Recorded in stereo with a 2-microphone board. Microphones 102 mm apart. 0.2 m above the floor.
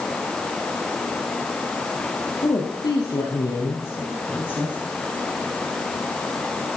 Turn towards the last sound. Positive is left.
turn(degrees=20)  # may be behind; listen again after turning